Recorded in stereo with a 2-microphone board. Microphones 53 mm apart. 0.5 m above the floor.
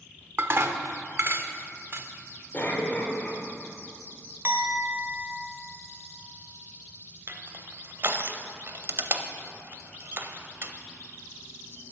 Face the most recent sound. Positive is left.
turn(degrees=-45)  # may be behind; listen again after turning